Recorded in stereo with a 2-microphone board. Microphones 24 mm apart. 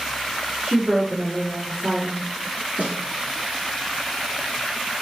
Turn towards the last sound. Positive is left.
turn(degrees=-75)  # may be behind; listen again after turning